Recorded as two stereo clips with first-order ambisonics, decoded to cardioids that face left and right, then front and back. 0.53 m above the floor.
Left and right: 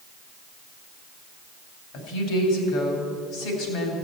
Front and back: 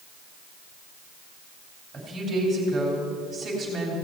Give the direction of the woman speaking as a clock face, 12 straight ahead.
8 o'clock.